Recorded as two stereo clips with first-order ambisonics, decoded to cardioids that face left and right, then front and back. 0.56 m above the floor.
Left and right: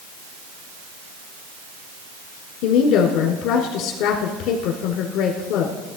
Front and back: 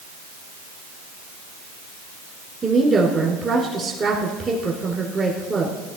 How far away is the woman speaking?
About 1.5 m.